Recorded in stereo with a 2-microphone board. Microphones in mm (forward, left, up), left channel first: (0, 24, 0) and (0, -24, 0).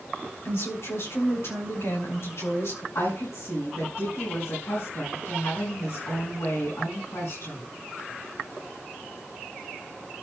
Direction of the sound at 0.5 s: 65° left (ahead or behind).